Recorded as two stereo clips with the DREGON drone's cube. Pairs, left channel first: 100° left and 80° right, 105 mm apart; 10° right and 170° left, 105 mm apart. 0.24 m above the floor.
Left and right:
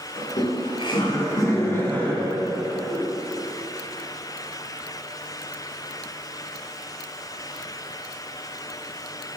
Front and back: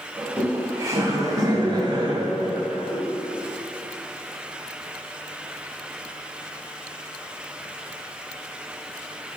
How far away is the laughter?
About 1.7 m.